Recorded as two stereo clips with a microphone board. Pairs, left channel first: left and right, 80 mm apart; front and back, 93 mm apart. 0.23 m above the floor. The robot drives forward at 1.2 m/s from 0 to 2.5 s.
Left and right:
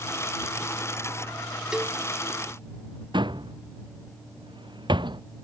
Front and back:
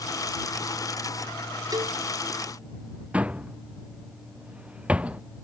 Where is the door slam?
105° right.